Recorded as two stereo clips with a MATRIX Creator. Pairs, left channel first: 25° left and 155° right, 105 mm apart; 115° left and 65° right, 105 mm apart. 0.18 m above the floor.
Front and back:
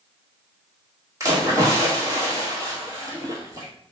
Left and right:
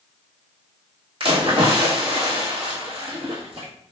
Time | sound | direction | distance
1.2 | a splash | 95° right | 1.4 m